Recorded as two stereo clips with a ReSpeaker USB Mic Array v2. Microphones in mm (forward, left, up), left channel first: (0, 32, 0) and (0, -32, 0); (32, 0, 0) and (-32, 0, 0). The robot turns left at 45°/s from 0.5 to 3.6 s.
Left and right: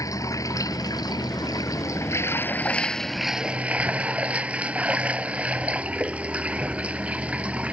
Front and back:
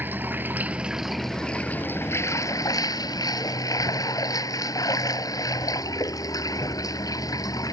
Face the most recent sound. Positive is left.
turn(degrees=-20)